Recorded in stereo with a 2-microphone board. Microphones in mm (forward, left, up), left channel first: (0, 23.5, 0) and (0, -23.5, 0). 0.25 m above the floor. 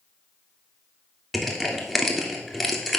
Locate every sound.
1.3 s crushing: centre (ahead or behind), 1.4 m